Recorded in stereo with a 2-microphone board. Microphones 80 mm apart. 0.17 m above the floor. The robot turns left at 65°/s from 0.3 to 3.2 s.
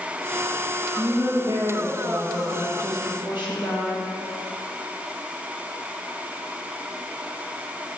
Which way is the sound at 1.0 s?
5° right.